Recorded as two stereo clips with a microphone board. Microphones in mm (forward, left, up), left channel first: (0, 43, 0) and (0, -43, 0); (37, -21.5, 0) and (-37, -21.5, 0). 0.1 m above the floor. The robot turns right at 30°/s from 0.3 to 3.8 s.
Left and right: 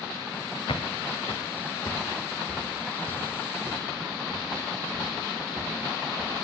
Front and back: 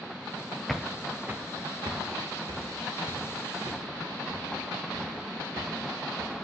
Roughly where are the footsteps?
Left.